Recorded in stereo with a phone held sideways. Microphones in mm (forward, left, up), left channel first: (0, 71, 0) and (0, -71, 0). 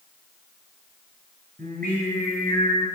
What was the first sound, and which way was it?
Singing, 85° right.